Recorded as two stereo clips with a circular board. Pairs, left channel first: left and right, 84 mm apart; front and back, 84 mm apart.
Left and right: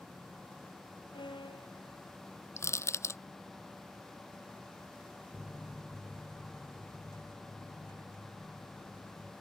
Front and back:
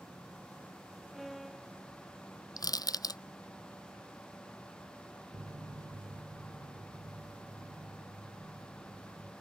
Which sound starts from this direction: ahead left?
Crushing, at 2.6 s.